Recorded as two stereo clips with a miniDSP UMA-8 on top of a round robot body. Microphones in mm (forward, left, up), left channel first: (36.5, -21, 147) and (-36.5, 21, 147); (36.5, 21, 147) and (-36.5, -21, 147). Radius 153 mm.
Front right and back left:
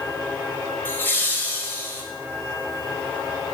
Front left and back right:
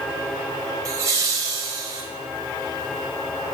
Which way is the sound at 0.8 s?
100° right.